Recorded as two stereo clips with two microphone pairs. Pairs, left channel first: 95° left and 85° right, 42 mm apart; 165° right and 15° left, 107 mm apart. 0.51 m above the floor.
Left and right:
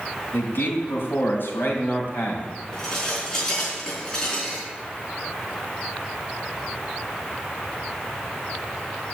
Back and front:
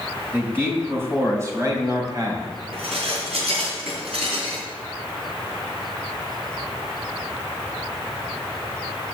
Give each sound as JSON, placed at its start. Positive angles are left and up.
{"t": 0.3, "sound": "a man speaking", "azimuth_deg": 85, "distance_m": 3.5}
{"t": 2.7, "sound": "dishes clattering", "azimuth_deg": 20, "distance_m": 4.0}